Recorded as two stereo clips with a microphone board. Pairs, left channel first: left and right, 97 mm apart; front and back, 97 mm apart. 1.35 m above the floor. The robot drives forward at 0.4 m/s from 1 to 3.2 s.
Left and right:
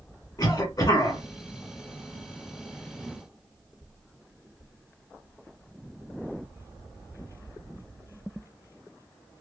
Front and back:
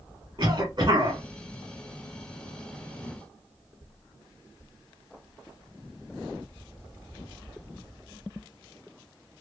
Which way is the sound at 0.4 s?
140° left.